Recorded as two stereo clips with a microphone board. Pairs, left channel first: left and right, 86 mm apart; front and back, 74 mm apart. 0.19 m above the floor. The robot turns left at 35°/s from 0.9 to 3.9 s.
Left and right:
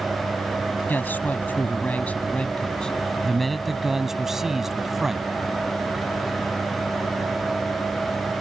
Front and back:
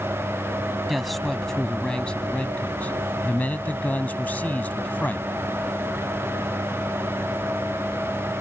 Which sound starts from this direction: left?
A man speaking, at 0.9 s.